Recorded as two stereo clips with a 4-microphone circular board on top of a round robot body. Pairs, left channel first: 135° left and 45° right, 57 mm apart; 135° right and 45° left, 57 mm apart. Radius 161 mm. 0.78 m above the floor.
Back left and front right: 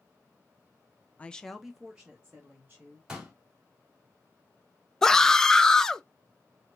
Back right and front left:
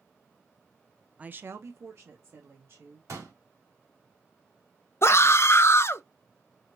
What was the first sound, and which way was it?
A woman speaking, 90° left.